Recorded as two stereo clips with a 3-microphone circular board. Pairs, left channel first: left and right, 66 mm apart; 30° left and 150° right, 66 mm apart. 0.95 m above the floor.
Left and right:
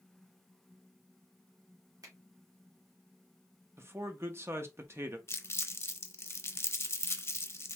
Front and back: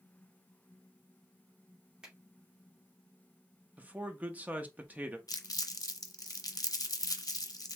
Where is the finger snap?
75° right, 2.0 m.